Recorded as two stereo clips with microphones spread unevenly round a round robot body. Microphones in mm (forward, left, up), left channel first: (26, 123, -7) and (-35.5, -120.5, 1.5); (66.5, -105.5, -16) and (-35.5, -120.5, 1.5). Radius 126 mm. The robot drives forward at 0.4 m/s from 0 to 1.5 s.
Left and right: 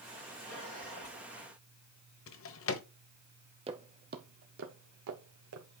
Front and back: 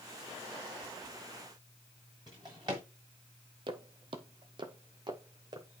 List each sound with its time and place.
2.3 s a drawer: 115° left, 1.1 m
3.7 s footsteps: 165° right, 1.0 m; by 5.8 s 125° right, 2 m